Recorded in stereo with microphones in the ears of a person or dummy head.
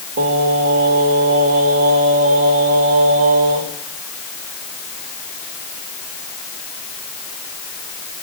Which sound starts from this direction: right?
Singing, at 0.2 s.